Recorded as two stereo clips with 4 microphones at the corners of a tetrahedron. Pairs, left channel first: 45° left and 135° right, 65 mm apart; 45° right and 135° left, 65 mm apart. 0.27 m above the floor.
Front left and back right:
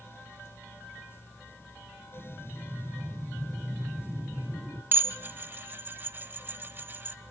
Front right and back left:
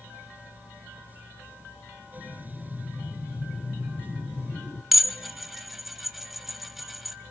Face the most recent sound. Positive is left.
turn(degrees=-140)